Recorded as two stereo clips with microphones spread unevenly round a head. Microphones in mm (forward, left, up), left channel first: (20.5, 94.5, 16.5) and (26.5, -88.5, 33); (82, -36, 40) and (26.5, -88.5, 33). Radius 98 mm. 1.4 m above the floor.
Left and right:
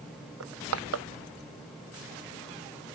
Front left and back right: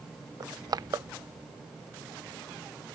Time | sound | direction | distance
0.4 | crushing | 100° right | ?